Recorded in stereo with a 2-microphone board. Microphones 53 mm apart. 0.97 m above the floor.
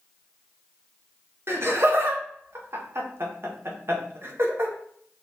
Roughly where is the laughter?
Right.